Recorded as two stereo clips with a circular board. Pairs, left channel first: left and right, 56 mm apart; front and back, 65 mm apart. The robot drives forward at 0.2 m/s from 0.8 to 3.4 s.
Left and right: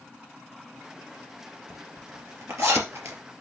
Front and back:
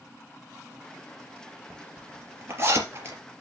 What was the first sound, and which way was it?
A zipper, 125° right.